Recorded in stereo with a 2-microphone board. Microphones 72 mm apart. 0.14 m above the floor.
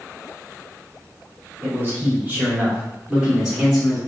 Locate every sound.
1.6 s a man speaking: 30° right (ahead or behind), 1.9 m; by 4.0 s 5° right (ahead or behind), 2 m